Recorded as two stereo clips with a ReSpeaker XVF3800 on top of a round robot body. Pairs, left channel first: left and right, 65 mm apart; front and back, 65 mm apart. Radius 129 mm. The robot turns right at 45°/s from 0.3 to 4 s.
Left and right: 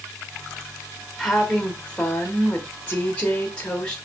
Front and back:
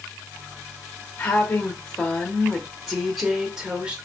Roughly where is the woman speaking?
Ahead.